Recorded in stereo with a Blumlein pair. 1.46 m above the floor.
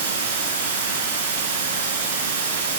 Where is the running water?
70° right, 1.6 m.